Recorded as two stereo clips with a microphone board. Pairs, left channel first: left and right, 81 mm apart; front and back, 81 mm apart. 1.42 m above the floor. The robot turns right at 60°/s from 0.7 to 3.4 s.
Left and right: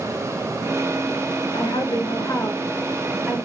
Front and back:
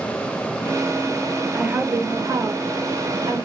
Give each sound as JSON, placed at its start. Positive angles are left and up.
{"t": 1.5, "sound": "a woman speaking", "azimuth_deg": 95, "distance_m": 1.2}